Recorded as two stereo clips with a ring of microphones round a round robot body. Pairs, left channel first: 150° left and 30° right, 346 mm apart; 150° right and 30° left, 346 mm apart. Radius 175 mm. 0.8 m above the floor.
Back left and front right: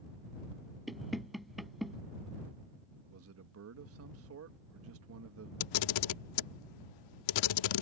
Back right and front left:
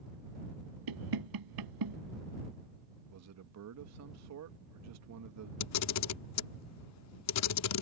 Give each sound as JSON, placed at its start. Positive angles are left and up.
{"t": 0.9, "sound": "knocking", "azimuth_deg": 60}
{"t": 3.1, "sound": "a man speaking", "azimuth_deg": 5}
{"t": 5.6, "sound": "a camera shutter", "azimuth_deg": 165}